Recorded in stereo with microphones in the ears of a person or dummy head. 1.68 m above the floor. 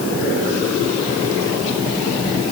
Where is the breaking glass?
I don't hear breaking glass.